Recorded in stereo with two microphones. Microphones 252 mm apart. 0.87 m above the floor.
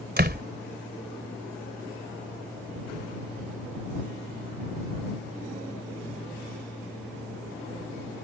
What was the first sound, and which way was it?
A door slam, 40° right (ahead or behind).